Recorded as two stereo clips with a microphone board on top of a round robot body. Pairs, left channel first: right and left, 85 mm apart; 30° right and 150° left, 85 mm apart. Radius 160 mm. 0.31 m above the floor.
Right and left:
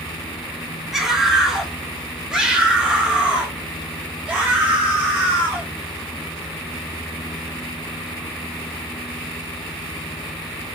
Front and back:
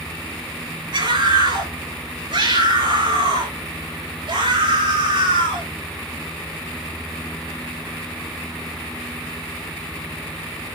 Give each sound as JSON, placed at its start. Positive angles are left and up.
{"t": 0.9, "sound": "a scream", "azimuth_deg": 175, "distance_m": 7.0}